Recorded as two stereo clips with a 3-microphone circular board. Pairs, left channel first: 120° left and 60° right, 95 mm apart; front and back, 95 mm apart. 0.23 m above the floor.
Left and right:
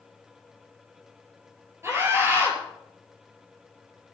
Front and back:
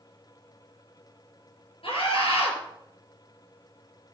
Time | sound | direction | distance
1.8 | a scream | straight ahead | 5 m